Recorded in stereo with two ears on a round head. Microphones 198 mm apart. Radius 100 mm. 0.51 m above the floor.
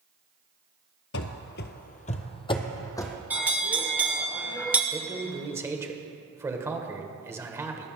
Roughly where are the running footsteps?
Left.